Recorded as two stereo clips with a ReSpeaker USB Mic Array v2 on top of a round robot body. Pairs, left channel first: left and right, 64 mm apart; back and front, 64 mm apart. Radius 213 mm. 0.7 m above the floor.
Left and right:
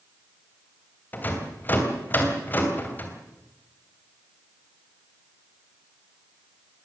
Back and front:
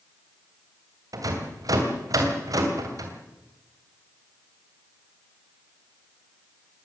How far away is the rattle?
About 3 m.